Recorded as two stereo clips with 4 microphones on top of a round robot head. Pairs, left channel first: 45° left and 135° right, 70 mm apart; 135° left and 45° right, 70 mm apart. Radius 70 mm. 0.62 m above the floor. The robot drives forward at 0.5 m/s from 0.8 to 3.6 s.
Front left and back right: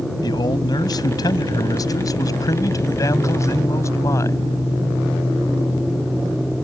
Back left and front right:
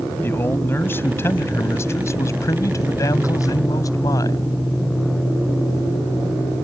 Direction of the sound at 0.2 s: 75° left.